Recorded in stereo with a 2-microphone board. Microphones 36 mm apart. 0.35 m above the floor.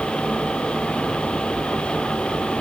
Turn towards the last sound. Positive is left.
No sound to turn to.